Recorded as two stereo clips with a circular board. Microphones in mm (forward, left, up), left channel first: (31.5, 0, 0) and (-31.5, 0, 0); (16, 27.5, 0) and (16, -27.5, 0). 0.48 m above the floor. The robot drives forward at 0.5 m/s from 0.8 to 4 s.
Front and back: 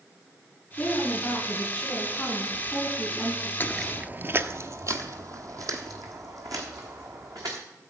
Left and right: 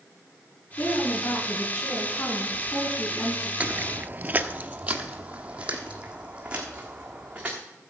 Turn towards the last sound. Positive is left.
turn(degrees=-165)